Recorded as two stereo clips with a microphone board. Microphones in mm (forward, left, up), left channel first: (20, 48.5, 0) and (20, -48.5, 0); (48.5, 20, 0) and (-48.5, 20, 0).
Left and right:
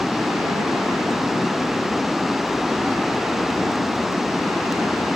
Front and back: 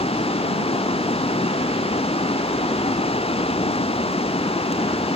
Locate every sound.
0.0 s running water: 5° right